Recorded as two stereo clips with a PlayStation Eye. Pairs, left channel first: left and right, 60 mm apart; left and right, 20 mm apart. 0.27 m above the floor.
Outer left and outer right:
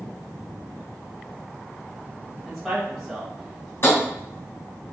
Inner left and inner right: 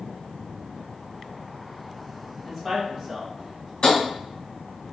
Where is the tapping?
40° left (ahead or behind), 1.9 m.